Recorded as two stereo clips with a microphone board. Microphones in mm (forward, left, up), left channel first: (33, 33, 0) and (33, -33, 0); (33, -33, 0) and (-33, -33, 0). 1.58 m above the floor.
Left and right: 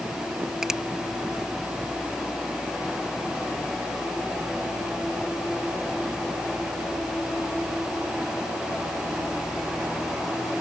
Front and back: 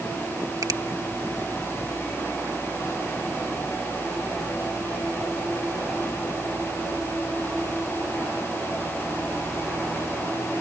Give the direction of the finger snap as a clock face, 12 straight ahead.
6 o'clock.